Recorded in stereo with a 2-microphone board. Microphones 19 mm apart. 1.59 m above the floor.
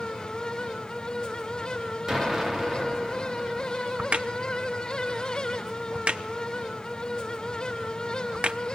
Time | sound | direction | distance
2.1 | an explosion | 30° right (ahead or behind) | 3 m
4.0 | a crack | 65° right (ahead or behind) | 0.8 m